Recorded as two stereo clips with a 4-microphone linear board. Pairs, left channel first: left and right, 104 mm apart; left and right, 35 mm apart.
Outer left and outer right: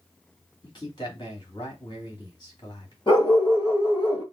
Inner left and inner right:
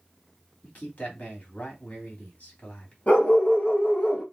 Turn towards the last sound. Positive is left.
turn(degrees=45)  # may be behind; listen again after turning